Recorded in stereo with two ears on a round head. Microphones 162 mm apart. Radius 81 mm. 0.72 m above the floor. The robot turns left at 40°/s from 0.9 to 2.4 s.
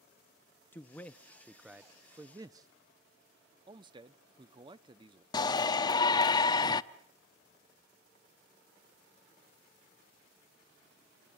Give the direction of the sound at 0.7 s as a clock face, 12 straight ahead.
11 o'clock.